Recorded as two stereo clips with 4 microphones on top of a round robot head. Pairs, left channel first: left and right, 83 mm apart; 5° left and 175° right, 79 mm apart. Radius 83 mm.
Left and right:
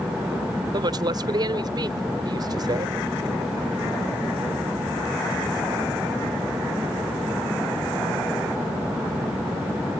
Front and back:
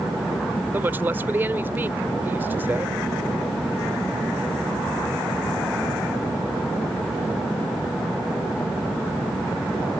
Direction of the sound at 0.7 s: 110° right.